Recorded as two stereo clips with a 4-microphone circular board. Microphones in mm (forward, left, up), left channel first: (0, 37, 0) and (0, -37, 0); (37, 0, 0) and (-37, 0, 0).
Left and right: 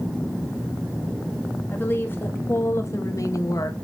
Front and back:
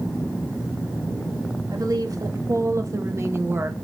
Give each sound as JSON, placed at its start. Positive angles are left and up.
{"t": 1.7, "sound": "a woman speaking", "azimuth_deg": 150, "distance_m": 2.5}